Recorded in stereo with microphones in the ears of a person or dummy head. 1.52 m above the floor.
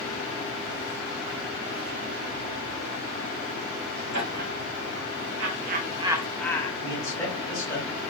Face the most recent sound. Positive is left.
turn(degrees=15)  # may be behind; listen again after turning